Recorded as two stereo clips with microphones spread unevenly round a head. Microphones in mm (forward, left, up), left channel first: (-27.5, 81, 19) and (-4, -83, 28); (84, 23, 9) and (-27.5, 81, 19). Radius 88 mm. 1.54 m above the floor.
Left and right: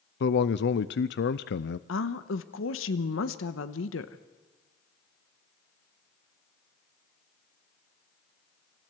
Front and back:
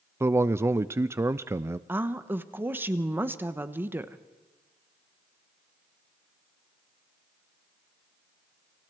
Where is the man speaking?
80° left, 0.7 m.